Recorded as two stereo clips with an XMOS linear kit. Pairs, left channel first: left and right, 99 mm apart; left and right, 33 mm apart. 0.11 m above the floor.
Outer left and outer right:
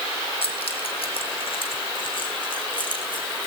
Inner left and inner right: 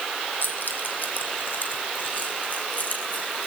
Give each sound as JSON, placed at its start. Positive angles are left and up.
{"t": 0.4, "sound": "keys jangling", "side_deg": 75, "distance_m": 2.5}